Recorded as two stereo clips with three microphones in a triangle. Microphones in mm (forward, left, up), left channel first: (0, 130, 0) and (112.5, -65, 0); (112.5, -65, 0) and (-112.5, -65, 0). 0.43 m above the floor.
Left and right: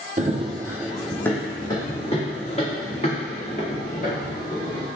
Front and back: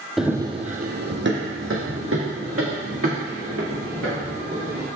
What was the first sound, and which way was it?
Running footsteps, 90° right.